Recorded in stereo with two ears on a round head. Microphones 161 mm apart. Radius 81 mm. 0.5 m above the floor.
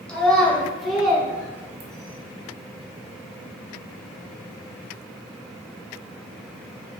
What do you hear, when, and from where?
0.1 s a child speaking: 5° left (ahead or behind), 1.6 m; by 2.2 s 25° right (ahead or behind), 0.8 m